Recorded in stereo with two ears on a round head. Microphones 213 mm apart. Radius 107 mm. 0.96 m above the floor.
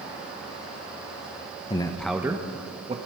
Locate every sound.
1.7 s a man speaking: 25° left (ahead or behind), 0.6 m; by 3.0 s 25° right (ahead or behind), 1.2 m